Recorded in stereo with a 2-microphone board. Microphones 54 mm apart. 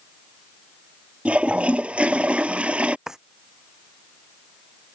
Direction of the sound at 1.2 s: 20° right (ahead or behind).